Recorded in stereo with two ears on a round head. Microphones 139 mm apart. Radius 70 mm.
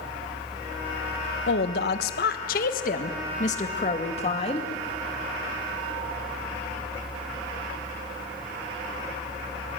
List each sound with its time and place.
1.5 s a woman speaking: 70° left (ahead or behind), 1.4 m; by 4.7 s 35° left (ahead or behind), 2.5 m